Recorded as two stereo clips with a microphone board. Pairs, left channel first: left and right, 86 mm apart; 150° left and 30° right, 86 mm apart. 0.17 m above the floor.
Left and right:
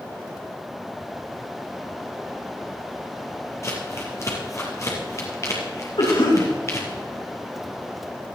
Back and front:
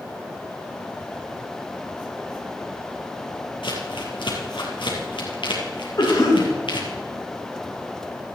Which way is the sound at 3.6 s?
145° left.